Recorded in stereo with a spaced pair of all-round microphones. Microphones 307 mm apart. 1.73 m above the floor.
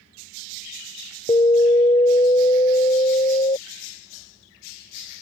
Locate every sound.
1.3 s an alarm: 20° left (ahead or behind)